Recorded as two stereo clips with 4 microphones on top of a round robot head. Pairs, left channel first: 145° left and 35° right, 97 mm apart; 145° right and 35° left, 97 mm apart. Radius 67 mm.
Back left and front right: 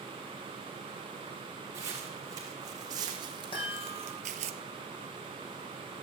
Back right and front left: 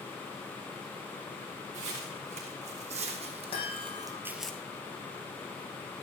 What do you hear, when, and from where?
1.7 s footsteps: 25° left, 4 m; by 4.5 s 60° right, 0.8 m
3.5 s a chime: 175° right, 6.5 m